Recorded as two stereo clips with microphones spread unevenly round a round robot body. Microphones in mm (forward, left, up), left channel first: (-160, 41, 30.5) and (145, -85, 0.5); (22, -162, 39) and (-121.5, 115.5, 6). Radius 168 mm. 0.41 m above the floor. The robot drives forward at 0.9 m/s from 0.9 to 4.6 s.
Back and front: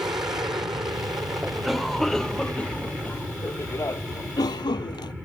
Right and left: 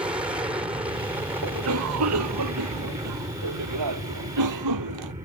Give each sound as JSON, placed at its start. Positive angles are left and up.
{"t": 0.0, "sound": "an aircraft", "azimuth_deg": 50}
{"t": 1.4, "sound": "a cough", "azimuth_deg": 65}